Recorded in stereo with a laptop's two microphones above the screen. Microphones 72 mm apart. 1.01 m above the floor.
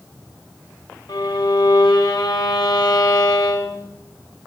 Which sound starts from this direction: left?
A violin, at 1.1 s.